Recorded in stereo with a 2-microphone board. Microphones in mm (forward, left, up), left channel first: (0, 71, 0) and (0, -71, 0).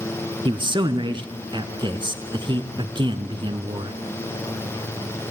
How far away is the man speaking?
About 1.5 m.